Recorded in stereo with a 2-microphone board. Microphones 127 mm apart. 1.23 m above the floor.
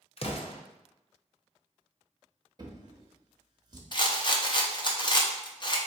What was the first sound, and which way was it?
An explosion, 50° left (ahead or behind).